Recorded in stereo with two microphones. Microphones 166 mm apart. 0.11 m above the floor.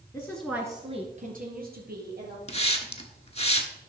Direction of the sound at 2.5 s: 40° left (ahead or behind).